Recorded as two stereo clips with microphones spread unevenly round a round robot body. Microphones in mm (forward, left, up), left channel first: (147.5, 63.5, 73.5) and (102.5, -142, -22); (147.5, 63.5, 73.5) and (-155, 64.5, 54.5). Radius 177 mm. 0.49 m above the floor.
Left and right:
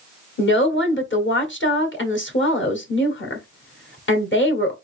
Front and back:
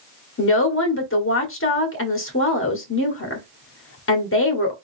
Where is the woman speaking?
35° left, 1.6 m.